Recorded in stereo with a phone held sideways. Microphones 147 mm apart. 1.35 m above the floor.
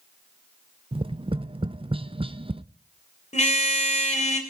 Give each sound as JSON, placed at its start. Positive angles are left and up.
{"t": 0.9, "sound": "tapping", "side_deg": -35, "distance_m": 0.6}
{"t": 3.3, "sound": "a car horn", "side_deg": 50, "distance_m": 2.5}